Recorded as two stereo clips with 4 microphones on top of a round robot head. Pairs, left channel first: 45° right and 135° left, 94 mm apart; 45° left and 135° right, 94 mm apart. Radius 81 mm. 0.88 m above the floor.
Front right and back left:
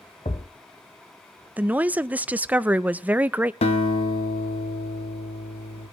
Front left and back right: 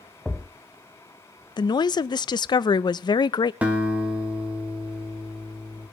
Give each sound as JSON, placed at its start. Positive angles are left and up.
{"t": 0.2, "sound": "a thud", "azimuth_deg": -45, "distance_m": 0.7}
{"t": 1.6, "sound": "a woman speaking", "azimuth_deg": 65, "distance_m": 0.5}
{"t": 3.6, "sound": "a guitar", "azimuth_deg": -60, "distance_m": 1.3}